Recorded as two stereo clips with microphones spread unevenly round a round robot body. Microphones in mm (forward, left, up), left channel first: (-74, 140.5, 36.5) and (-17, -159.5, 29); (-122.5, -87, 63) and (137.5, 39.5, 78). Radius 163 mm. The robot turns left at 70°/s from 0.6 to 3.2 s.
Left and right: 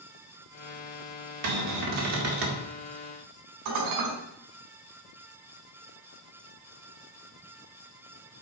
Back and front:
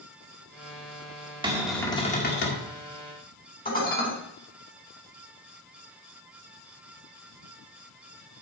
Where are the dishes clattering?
95° right, 4 m.